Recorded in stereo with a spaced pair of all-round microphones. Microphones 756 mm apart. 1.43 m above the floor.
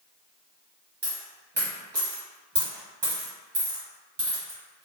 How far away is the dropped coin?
About 1.0 m.